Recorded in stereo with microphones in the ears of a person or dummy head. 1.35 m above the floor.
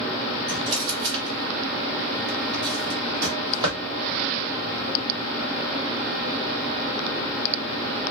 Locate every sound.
0.5 s a drawer: 25° right (ahead or behind), 1.0 m